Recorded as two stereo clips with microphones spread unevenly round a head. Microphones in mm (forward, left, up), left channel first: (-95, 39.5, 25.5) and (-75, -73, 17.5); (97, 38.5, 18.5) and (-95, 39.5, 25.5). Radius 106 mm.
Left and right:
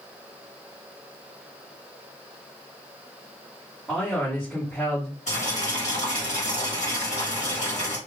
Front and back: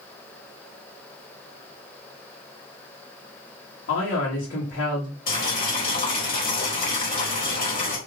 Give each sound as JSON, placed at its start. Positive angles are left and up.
{"t": 3.9, "sound": "a man speaking", "azimuth_deg": 15, "distance_m": 1.3}
{"t": 5.3, "sound": "boiling", "azimuth_deg": 45, "distance_m": 1.4}